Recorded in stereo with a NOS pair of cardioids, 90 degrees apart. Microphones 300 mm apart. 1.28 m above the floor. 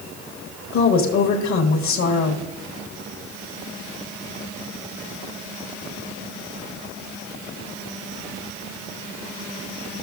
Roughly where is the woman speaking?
Left.